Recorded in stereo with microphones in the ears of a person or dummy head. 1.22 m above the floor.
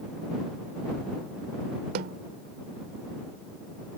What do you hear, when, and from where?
1.9 s a snare drum: 55° right (ahead or behind)